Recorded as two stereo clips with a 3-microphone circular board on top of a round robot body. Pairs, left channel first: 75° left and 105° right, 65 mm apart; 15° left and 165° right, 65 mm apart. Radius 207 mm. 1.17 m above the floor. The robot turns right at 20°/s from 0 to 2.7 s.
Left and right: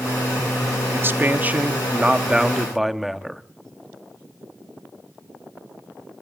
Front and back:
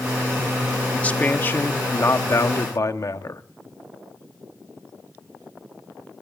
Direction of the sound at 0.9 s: 55° right.